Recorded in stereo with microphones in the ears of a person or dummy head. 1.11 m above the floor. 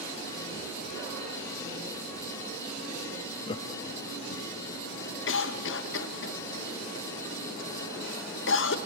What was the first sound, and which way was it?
Laughter, 20° left (ahead or behind).